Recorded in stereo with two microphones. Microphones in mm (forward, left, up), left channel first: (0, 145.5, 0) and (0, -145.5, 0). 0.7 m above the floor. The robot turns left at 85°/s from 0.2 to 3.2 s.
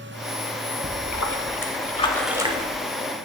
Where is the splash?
120° left, 0.9 m; by 2.8 s 40° right, 0.9 m.